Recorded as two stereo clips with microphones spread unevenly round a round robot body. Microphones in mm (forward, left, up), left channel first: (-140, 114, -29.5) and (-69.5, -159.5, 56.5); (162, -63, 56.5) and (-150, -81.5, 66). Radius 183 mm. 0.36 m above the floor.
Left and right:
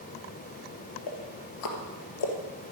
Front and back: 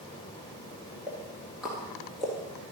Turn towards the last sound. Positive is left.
turn(degrees=95)